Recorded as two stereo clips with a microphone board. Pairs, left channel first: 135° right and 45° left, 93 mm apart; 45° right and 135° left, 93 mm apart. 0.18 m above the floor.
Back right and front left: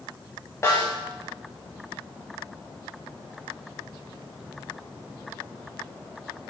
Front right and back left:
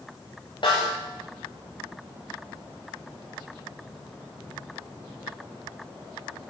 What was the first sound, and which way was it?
A snare drum, 75° right.